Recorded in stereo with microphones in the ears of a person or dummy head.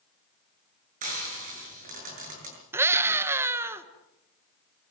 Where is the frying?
45° right (ahead or behind), 6.5 m.